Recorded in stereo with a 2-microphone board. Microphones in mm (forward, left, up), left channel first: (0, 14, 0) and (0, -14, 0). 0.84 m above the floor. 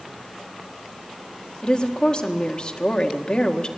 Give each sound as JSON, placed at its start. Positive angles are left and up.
{"t": 1.6, "sound": "a woman speaking", "side_deg": 35, "distance_m": 1.9}